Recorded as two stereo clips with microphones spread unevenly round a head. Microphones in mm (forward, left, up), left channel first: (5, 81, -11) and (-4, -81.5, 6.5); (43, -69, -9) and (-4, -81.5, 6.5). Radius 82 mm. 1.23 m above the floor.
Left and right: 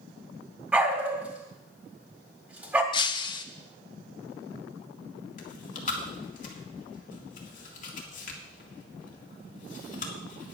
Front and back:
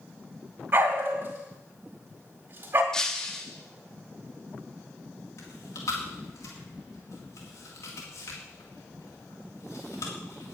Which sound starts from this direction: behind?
A dog barking, at 0.7 s.